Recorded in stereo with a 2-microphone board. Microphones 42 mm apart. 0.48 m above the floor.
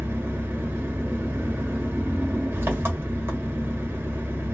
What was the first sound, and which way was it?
An engine running, 55° right (ahead or behind).